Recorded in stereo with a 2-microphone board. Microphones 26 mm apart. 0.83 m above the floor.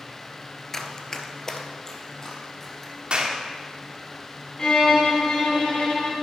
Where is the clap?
40° right (ahead or behind), 1.4 m.